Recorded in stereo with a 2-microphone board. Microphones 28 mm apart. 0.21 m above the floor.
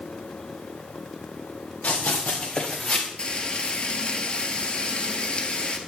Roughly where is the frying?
Left.